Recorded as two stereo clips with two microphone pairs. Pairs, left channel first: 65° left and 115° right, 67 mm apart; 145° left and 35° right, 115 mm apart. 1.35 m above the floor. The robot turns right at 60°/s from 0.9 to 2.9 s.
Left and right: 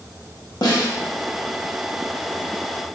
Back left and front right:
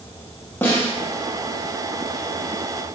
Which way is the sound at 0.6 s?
75° left.